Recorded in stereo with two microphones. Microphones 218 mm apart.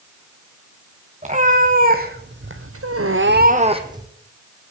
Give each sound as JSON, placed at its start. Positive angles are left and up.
{"t": 1.2, "sound": "a cat meowing", "side_deg": -30, "distance_m": 3.0}